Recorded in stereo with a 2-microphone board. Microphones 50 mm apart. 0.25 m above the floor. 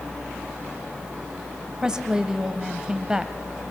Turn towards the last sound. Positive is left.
turn(degrees=-15)  # may be behind; listen again after turning